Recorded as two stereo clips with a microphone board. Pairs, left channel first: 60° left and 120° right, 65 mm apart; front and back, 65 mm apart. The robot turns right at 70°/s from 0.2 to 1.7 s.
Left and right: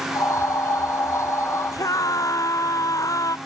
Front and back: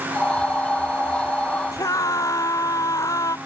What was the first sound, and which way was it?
A scream, 30° left.